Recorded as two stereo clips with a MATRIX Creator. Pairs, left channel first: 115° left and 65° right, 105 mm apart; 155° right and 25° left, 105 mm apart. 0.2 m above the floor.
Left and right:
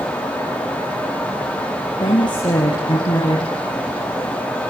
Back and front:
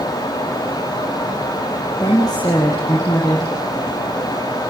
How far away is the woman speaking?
About 4.5 m.